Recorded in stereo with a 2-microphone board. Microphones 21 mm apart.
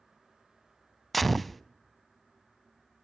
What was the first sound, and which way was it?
A gunshot, centre (ahead or behind).